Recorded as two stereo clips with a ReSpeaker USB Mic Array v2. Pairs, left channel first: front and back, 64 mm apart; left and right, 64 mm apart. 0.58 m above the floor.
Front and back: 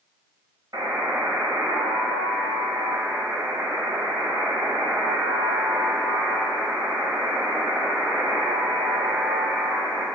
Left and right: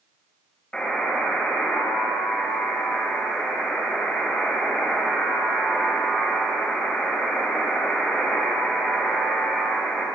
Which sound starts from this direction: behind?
A buzzer, at 0.7 s.